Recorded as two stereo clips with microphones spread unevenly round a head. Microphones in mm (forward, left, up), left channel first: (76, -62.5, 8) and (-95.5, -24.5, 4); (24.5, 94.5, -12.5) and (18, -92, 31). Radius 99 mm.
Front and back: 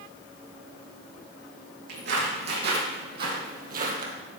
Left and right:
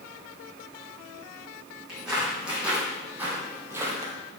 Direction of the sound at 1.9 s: 175° right.